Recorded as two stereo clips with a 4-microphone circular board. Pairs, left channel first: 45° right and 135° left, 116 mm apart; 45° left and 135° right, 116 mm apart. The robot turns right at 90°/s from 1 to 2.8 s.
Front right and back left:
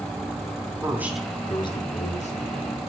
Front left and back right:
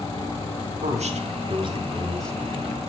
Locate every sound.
0.8 s a man speaking: 150° right, 2.0 m; by 2.8 s 10° left, 2.0 m